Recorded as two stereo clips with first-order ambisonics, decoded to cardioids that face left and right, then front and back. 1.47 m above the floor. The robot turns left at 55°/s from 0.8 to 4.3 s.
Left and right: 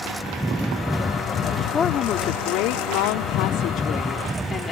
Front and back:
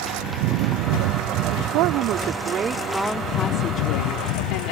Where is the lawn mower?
175° right; by 4.7 s 10° right.